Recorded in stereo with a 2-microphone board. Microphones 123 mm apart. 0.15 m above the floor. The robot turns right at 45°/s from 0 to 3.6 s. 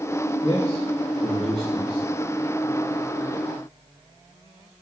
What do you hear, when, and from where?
0.4 s a man speaking: 55° left, 2 m; by 2.0 s 130° left, 2 m